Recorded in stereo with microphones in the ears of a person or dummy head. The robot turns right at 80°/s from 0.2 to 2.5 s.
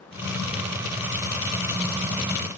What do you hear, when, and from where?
Only background noise.